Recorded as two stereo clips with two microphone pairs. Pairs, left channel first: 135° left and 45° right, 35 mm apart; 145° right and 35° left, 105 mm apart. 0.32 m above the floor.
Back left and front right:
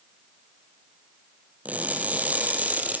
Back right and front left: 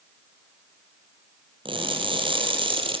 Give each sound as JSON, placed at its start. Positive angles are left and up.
{"t": 1.6, "sound": "crushing", "azimuth_deg": 0, "distance_m": 5.0}